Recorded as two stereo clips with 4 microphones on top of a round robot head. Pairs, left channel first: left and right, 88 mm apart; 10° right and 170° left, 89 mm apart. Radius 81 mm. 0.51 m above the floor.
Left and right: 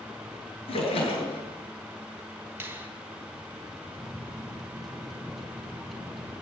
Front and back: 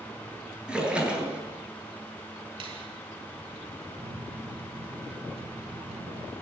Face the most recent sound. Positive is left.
turn(degrees=180)